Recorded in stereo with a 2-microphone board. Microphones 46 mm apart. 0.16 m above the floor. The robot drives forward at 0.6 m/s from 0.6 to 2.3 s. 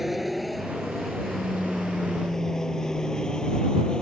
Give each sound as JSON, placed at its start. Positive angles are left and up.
{"t": 0.0, "sound": "an aircraft", "side_deg": -5}